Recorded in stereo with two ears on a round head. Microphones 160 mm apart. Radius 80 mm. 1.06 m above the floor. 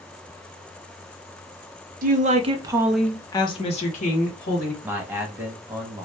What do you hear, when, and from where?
2.0 s a woman speaking: 50° right (ahead or behind), 0.7 m; by 4.7 s 55° left (ahead or behind), 1.2 m
4.8 s a man speaking: 10° right (ahead or behind), 0.7 m